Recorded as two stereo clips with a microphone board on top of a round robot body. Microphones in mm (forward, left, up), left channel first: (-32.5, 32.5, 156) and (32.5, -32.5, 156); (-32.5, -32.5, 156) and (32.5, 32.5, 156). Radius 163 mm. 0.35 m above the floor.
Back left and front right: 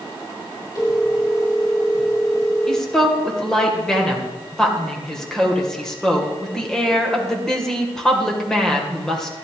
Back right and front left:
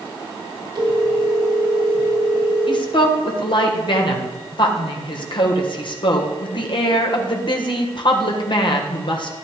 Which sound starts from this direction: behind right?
A woman speaking, at 2.7 s.